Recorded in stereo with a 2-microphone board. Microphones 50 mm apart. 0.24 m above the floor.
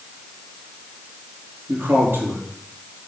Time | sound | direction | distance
1.7 | a man speaking | 50° right (ahead or behind) | 5 m